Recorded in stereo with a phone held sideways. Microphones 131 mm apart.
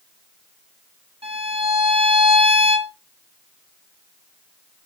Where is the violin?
45° right (ahead or behind), 1.3 m.